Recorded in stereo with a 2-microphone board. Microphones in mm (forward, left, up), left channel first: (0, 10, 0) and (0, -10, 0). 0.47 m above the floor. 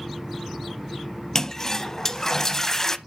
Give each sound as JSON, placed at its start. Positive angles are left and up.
{"t": 1.4, "sound": "a toilet flushing", "side_deg": 20, "distance_m": 0.7}